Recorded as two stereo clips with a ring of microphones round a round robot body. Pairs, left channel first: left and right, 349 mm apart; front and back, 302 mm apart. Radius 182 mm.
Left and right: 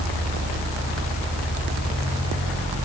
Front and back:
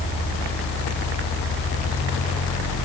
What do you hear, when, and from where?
Only background noise.